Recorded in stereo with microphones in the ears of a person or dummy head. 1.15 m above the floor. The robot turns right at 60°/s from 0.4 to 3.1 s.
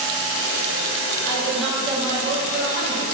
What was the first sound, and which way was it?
A woman speaking, 160° left.